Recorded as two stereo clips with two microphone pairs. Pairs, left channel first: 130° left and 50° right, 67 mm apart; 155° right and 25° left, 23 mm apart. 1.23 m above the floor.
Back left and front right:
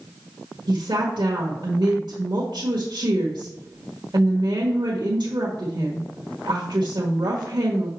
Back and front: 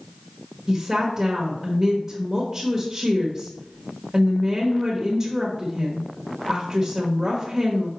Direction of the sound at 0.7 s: 50° right.